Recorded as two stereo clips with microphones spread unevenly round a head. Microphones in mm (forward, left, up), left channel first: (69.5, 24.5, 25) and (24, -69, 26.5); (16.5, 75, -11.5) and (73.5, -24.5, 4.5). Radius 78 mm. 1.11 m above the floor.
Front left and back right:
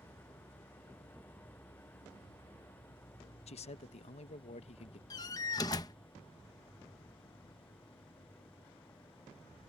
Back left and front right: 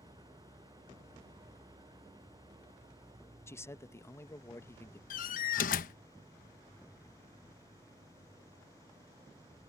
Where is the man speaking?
55° left.